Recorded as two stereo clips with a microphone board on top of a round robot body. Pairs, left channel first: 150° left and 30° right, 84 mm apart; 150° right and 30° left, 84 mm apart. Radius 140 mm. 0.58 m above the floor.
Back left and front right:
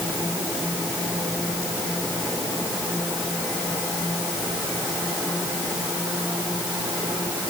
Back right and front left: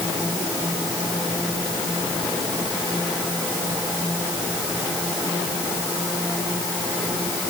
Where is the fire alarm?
I don't hear a fire alarm.